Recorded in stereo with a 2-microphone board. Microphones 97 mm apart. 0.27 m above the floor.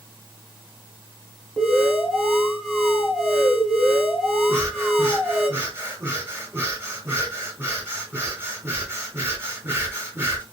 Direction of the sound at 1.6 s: Centre (ahead or behind).